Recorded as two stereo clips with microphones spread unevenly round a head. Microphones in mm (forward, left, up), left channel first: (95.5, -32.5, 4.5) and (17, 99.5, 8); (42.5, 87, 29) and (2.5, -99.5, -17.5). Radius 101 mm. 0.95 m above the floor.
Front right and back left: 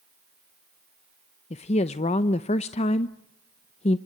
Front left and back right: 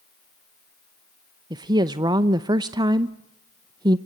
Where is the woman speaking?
65° right, 0.7 m.